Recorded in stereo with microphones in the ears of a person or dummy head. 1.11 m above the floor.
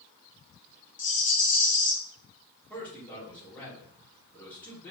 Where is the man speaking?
10° left (ahead or behind), 2.0 m.